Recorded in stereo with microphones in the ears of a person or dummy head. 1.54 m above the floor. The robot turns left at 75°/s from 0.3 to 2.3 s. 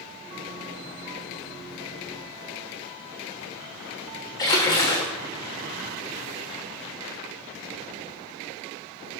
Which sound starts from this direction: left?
A splash, at 4.4 s.